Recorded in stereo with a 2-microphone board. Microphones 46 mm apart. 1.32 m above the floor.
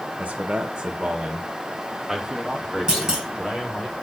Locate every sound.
0.2 s a man speaking: 35° right (ahead or behind), 1.1 m; by 3.9 s 10° right (ahead or behind), 4 m
2.9 s a clunk: 15° right (ahead or behind), 3.5 m